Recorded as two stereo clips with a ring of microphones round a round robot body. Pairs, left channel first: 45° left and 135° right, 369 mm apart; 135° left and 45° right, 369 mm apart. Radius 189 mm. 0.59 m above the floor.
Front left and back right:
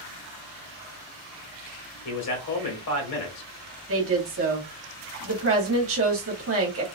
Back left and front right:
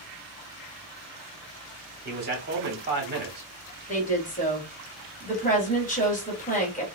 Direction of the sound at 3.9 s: 165° right.